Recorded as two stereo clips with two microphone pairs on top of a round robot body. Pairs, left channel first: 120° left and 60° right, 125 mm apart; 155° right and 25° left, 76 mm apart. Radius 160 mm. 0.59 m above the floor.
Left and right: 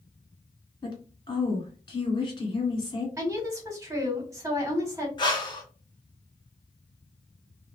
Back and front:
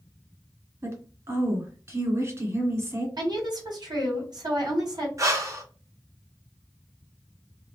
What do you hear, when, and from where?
0.8 s a woman speaking: 70° left, 1.9 m
3.2 s a woman speaking: 5° left, 1.5 m
5.2 s breathing: 70° left, 0.9 m